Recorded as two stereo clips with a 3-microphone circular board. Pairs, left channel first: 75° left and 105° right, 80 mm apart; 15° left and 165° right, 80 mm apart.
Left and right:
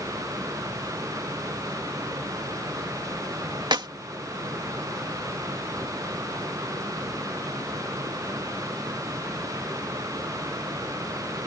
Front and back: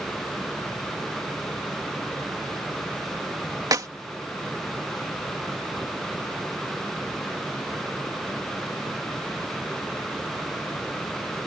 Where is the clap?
125° right.